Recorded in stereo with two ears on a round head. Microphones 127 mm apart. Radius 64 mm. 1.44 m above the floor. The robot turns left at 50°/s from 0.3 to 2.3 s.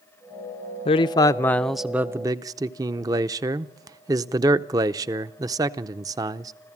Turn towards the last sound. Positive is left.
turn(degrees=-25)